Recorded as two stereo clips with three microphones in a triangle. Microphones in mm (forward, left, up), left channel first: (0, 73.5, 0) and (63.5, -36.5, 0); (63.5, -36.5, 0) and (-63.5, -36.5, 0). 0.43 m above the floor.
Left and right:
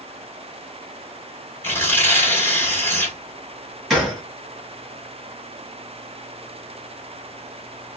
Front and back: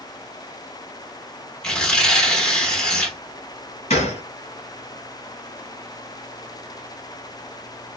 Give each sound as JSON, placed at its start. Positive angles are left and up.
{"t": 1.6, "sound": "tearing paper", "azimuth_deg": 75, "distance_m": 1.4}
{"t": 3.9, "sound": "a gunshot", "azimuth_deg": 30, "distance_m": 1.9}